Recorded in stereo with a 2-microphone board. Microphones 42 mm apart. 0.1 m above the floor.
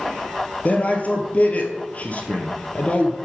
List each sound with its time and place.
0.7 s a man speaking: 35° left (ahead or behind), 1.9 m